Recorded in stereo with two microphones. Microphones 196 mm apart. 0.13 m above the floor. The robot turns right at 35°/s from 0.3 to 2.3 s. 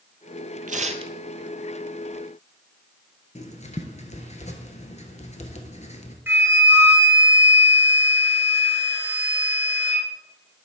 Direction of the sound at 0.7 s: 45° right (ahead or behind).